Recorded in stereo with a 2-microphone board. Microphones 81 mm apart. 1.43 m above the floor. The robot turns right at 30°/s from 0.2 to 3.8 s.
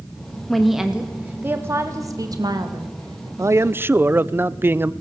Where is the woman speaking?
175° left, 2 m; by 3.3 s 100° right, 2 m.